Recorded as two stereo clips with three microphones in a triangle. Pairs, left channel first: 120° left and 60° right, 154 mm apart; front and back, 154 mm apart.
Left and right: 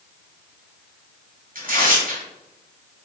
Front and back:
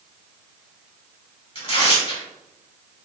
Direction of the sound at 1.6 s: 50° right.